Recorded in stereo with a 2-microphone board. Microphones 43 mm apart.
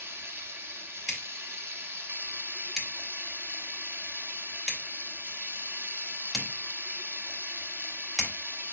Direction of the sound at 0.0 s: 65° right (ahead or behind).